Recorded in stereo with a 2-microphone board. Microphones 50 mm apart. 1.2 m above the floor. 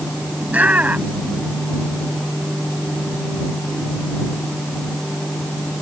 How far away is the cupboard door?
No cupboard door in this recording.